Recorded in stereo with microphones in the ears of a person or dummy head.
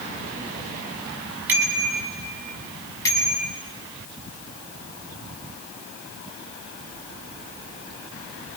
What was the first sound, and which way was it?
A bicycle bell, 10° right (ahead or behind).